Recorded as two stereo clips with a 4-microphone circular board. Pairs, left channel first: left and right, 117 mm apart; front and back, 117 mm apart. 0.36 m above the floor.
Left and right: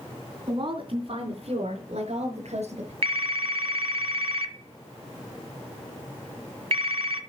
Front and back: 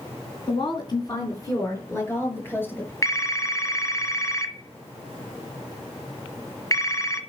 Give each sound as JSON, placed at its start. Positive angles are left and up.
{"t": 0.5, "sound": "a woman speaking", "azimuth_deg": -45, "distance_m": 3.5}
{"t": 3.0, "sound": "a phone ringing", "azimuth_deg": -60, "distance_m": 1.5}